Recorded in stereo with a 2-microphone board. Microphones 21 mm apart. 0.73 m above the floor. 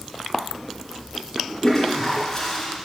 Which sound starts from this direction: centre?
A toilet flushing, at 1.6 s.